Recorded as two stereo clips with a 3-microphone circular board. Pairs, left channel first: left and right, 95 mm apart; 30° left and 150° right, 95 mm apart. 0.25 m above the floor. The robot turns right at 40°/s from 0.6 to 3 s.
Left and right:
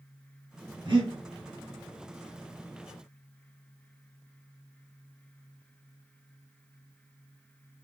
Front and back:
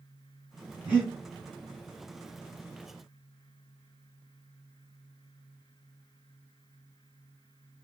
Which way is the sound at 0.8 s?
85° right.